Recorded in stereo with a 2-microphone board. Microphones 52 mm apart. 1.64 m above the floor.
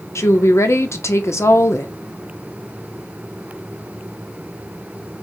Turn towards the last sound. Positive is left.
turn(degrees=65)  # may be behind; listen again after turning